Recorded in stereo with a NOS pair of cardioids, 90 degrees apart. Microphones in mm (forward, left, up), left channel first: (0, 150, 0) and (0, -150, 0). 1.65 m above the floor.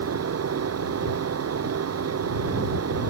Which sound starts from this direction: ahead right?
A fan, at 0.0 s.